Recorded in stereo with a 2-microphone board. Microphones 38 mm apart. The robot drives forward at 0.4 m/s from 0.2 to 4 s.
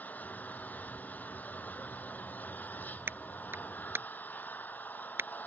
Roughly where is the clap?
Right.